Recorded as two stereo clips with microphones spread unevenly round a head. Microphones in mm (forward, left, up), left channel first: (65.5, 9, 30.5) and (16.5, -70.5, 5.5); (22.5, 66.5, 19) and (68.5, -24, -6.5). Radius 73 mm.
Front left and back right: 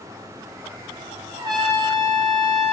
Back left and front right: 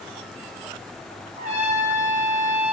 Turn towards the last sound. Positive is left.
turn(degrees=-75)